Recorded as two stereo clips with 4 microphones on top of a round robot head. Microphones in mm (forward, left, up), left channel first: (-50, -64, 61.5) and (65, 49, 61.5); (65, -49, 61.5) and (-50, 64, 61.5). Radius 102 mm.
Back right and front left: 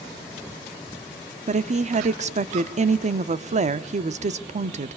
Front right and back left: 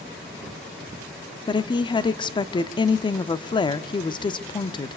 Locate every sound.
1.5 s a woman speaking: 10° left, 1.2 m